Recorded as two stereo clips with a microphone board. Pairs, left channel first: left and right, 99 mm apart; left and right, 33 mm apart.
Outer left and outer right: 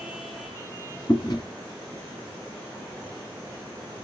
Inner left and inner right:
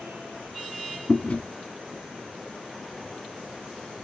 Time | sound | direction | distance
1.1 | chewing | 50° left (ahead or behind) | 1.3 m